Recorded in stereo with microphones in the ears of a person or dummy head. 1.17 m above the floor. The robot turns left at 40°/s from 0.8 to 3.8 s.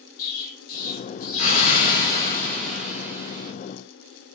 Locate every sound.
0.2 s an explosion: 75° left, 1.1 m; by 3.5 s 30° right, 1.1 m